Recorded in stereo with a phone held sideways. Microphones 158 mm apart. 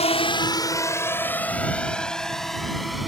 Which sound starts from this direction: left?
A drone, at 0.0 s.